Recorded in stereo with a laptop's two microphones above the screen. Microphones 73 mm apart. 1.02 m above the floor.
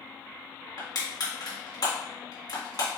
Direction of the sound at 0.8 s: 65° left (ahead or behind).